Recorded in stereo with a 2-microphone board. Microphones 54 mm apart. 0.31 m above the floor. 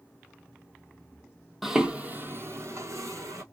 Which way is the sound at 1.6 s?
5° right (ahead or behind).